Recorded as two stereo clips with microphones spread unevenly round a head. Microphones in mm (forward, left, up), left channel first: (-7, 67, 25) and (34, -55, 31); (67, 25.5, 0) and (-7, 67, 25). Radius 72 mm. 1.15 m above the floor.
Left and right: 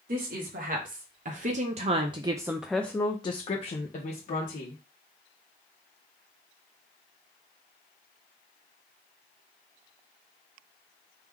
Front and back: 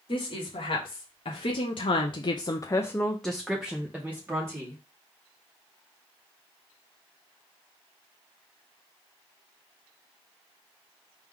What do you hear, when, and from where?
0.1 s a woman speaking: 60° right, 1.5 m; by 4.8 s 85° left, 1.3 m